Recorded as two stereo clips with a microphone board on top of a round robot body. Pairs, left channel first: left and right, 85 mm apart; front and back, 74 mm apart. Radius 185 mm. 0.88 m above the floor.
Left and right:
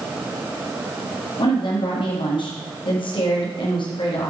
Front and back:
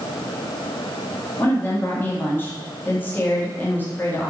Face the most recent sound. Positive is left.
turn(degrees=65)